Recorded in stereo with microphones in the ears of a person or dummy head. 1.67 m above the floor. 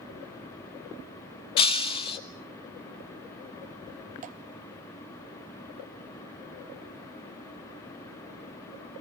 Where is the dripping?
40° right (ahead or behind), 1.0 m.